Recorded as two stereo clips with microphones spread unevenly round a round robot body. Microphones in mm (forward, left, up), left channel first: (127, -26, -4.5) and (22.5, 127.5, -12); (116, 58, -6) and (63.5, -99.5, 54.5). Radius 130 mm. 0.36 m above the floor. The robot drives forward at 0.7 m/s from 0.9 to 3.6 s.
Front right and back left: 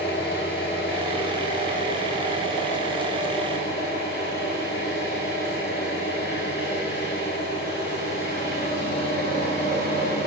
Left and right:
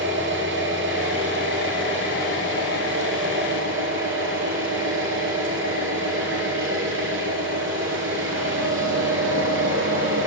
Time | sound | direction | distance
0.0 | an engine running | 110° right | 9 m